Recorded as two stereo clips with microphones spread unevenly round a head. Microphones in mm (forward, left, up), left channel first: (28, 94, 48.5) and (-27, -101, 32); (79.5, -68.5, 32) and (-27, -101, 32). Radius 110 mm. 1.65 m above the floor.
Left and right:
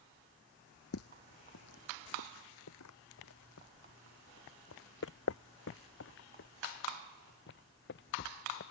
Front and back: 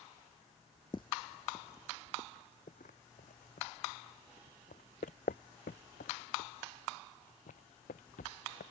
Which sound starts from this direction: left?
Footsteps, at 0.9 s.